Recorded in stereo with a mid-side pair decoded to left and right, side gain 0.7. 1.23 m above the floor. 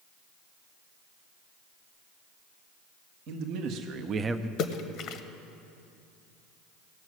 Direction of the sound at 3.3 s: 65° right.